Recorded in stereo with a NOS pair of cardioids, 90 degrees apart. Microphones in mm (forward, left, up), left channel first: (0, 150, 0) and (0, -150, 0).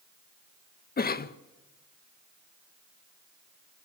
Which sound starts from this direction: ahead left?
A cough, at 1.0 s.